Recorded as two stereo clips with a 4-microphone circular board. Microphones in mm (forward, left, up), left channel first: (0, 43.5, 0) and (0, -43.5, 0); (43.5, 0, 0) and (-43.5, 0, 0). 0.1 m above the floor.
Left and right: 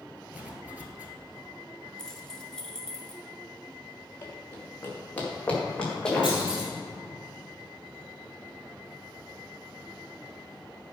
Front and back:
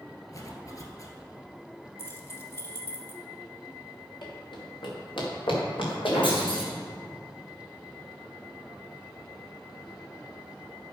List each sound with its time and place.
0.3 s a zipper: 25° right, 1.4 m
2.0 s keys jangling: 15° left, 1.2 m
4.2 s running footsteps: 30° left, 3.5 m; by 6.3 s 5° left, 4 m
6.2 s a clunk: 10° right, 3 m